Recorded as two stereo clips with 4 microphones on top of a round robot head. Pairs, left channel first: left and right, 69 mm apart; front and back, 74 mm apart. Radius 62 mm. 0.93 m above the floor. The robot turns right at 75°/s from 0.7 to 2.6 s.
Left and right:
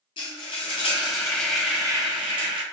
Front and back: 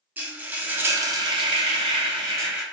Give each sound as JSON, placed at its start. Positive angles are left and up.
{"t": 0.2, "sound": "frying", "azimuth_deg": 115, "distance_m": 0.7}